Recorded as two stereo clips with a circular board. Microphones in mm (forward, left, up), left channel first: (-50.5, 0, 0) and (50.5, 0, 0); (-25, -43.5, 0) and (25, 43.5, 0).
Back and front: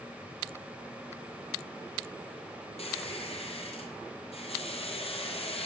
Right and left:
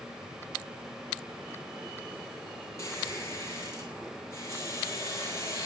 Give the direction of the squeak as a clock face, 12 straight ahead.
6 o'clock.